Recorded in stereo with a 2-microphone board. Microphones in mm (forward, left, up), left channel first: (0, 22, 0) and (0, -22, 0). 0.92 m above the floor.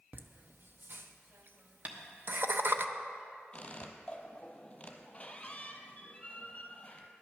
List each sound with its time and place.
0.1 s laughter: 50° right (ahead or behind), 0.7 m
1.9 s tapping: 30° right (ahead or behind), 1.0 m
3.5 s a squeak: 25° left (ahead or behind), 1.0 m